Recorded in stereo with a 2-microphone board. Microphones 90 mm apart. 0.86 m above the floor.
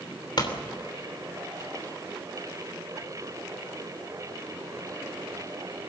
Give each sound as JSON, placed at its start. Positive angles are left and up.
{"t": 0.4, "sound": "a pop", "side_deg": 55, "distance_m": 3.0}